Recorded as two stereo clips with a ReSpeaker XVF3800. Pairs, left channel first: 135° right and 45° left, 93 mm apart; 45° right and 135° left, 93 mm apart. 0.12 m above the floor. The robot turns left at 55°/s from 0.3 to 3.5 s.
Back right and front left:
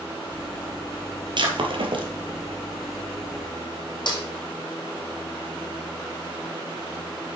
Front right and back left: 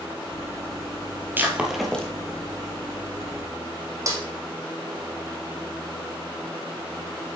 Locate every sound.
1.4 s breaking glass: 70° left, 1.6 m; by 2.1 s 30° left, 1.6 m
4.1 s a snare drum: 170° right, 2 m